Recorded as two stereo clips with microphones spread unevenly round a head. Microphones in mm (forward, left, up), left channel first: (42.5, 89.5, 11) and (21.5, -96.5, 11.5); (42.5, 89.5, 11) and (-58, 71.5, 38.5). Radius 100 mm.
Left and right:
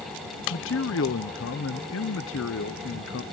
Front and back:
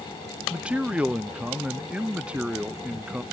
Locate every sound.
0.5 s a man speaking: 105° left